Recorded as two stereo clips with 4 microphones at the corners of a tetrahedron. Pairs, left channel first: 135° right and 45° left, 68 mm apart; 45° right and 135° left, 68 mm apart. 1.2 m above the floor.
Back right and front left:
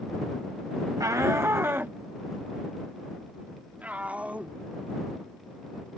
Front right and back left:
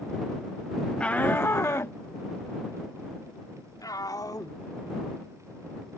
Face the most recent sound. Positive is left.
turn(degrees=-25)